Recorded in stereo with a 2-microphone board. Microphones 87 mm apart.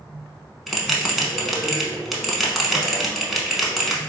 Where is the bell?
Centre (ahead or behind), 0.7 m.